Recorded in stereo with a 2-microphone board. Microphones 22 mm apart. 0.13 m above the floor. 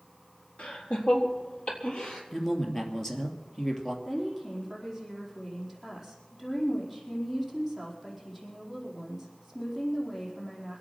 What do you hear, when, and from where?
0.6 s laughter: 60° left (ahead or behind), 3.5 m; by 2.2 s 50° left (ahead or behind), 4 m
2.3 s a woman speaking: 20° left (ahead or behind), 2.5 m
4.0 s a woman speaking: 5° left (ahead or behind), 4.5 m